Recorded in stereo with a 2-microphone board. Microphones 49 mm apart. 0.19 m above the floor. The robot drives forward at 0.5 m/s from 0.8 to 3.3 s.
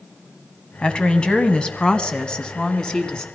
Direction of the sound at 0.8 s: 20° left (ahead or behind).